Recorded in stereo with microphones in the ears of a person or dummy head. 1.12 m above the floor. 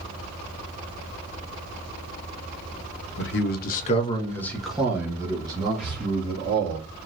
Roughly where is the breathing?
Centre.